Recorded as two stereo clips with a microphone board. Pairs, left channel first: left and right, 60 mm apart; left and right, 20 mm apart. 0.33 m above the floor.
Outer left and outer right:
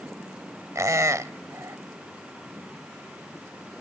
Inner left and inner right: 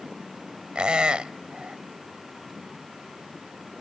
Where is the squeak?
55° right (ahead or behind), 0.5 m.